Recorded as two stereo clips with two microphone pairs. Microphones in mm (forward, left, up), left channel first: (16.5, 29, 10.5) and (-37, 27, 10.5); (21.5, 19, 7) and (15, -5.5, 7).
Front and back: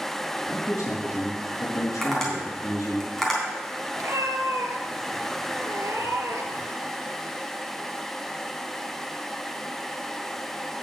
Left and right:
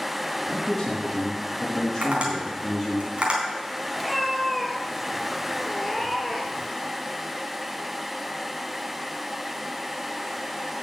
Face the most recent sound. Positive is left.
turn(degrees=160)